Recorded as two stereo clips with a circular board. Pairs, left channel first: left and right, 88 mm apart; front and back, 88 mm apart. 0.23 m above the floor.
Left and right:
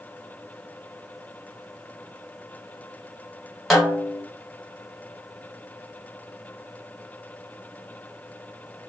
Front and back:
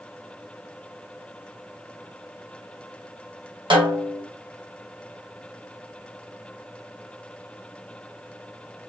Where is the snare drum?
Straight behind, 1.3 m.